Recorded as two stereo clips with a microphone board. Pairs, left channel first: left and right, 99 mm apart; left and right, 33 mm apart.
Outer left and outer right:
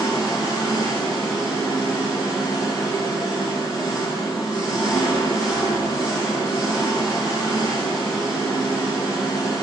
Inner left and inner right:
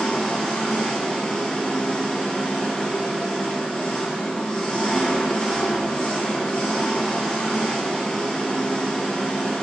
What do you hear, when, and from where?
0.0 s an engine running: 40° left (ahead or behind), 1.0 m